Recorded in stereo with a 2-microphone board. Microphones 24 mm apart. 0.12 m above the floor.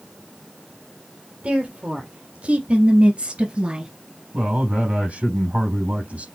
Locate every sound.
1.4 s a woman speaking: 55° right (ahead or behind), 3 m; by 3.9 s 35° right (ahead or behind), 1.6 m
4.3 s a man speaking: 70° right (ahead or behind), 4 m